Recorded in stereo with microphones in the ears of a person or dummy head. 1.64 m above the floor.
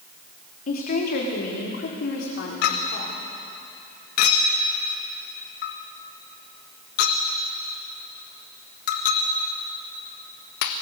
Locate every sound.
0.7 s a woman speaking: 35° left (ahead or behind), 3.5 m; by 3.2 s 55° left (ahead or behind), 5 m
2.6 s a clink: 40° left (ahead or behind), 1.4 m